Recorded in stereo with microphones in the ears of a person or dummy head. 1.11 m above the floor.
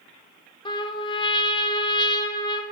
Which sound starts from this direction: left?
A trumpet, at 0.7 s.